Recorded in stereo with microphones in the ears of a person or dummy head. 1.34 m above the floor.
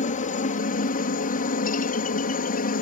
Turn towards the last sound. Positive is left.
turn(degrees=45)  # may be behind; listen again after turning